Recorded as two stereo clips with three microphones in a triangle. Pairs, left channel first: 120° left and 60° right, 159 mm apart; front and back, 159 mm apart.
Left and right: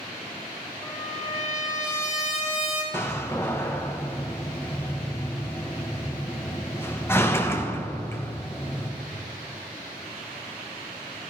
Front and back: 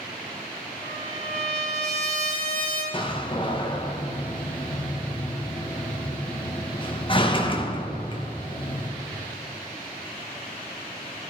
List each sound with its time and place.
0.8 s a trumpet: 145° right, 2.5 m
2.9 s a door slam: 45° left, 0.9 m